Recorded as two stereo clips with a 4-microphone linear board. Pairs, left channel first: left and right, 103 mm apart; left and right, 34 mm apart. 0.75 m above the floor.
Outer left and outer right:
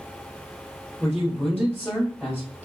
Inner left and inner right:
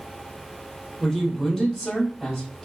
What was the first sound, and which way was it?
A man speaking, centre (ahead or behind).